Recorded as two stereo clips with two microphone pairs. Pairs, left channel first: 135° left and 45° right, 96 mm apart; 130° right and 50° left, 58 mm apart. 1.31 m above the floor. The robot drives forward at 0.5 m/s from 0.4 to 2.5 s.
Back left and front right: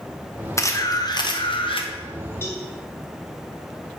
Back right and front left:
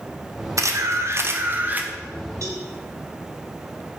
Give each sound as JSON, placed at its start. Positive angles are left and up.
{"t": 0.6, "sound": "a camera shutter", "azimuth_deg": 75, "distance_m": 1.0}
{"t": 2.4, "sound": "a cowbell", "azimuth_deg": 75, "distance_m": 1.5}